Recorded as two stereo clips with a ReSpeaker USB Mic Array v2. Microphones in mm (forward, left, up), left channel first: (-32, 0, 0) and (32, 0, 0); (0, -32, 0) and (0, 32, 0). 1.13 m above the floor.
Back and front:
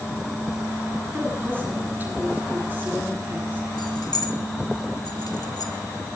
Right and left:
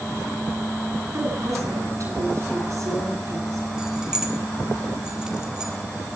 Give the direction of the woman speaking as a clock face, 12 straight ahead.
10 o'clock.